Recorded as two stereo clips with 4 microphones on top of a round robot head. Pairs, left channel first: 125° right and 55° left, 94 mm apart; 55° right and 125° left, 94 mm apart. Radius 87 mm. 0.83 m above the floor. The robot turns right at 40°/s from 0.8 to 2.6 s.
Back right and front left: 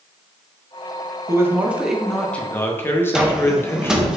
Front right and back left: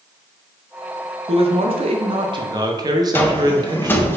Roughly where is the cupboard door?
Ahead.